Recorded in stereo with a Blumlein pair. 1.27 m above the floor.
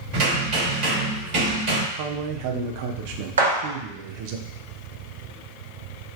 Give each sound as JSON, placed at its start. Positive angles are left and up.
{"t": 0.1, "sound": "hammering", "azimuth_deg": -50, "distance_m": 1.9}
{"t": 1.9, "sound": "a man speaking", "azimuth_deg": -45, "distance_m": 0.5}
{"t": 3.4, "sound": "a gunshot", "azimuth_deg": -70, "distance_m": 1.1}